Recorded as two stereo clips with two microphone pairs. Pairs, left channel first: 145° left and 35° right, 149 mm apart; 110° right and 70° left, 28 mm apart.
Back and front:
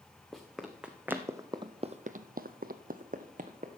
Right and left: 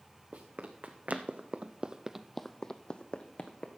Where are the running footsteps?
60° left, 1.5 m; by 3.7 s 75° right, 1.3 m.